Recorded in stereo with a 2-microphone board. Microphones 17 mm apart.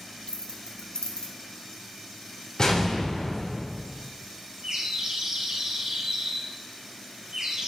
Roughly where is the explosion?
Left.